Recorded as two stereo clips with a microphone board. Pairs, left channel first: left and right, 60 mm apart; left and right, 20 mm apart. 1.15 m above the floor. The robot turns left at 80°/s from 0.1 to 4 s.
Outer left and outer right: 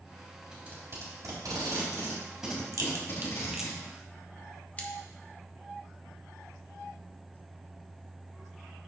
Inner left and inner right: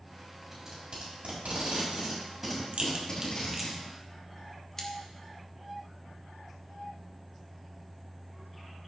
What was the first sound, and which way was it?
Tape being pulled, 20° right (ahead or behind).